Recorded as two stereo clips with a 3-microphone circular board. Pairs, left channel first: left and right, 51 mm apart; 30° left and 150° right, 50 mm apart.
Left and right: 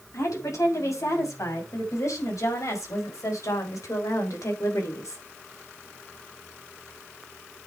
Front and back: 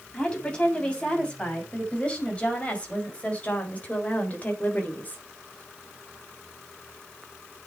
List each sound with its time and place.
0.1 s a woman speaking: 100° left, 7 m; by 5.2 s 85° left, 3.5 m